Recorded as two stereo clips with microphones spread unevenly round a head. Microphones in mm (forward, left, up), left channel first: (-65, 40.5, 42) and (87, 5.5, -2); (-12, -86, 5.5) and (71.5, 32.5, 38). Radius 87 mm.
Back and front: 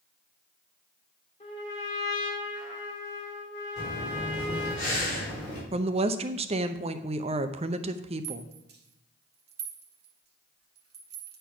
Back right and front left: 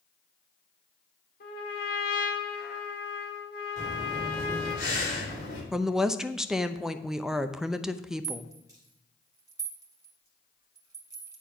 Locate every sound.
1.4 s a trumpet: 140° right, 2.5 m
3.8 s breathing: 150° right, 4.5 m
5.7 s a woman speaking: 40° right, 0.7 m
8.2 s a rattle: 10° right, 1.9 m